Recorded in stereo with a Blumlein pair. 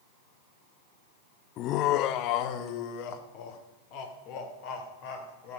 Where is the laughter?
35° left, 0.5 m; by 5.6 s 45° left, 4 m.